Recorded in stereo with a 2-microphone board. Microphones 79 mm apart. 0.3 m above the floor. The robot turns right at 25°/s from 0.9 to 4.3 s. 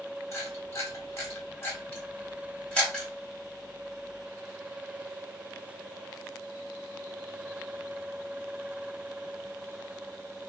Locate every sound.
0.3 s a camera shutter: 40° left (ahead or behind), 1.9 m; by 3.1 s 10° left (ahead or behind), 1.9 m